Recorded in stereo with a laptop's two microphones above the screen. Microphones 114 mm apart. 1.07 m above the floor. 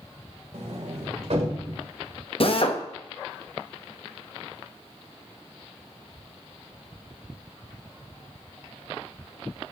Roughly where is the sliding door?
Right.